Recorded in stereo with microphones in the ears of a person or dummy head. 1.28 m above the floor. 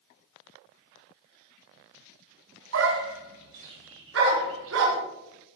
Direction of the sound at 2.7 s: 70° right (ahead or behind).